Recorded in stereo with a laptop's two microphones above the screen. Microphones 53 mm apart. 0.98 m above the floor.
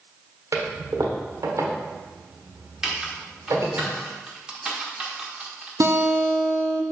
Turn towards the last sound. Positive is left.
turn(degrees=-85)